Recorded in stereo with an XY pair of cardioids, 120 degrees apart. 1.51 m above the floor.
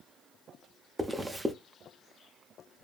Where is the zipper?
15° right, 0.6 m.